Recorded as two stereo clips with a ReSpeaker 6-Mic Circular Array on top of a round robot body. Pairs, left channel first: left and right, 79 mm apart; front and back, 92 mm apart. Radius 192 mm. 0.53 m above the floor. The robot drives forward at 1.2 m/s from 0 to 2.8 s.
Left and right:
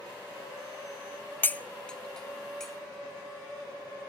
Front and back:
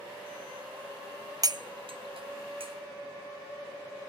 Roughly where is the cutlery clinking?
Behind left.